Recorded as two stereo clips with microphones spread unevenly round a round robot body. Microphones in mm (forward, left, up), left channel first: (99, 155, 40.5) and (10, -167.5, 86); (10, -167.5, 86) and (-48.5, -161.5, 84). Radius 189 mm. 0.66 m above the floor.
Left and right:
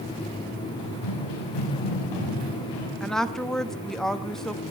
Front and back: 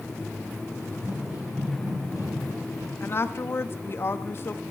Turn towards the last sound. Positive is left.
turn(degrees=-5)